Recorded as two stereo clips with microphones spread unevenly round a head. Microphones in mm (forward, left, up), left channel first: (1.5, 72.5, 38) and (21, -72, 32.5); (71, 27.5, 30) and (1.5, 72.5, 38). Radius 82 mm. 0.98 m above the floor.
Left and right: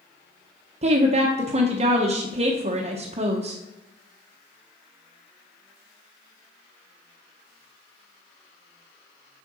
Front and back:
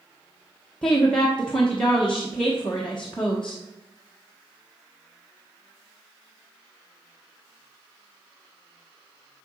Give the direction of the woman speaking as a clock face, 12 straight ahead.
4 o'clock.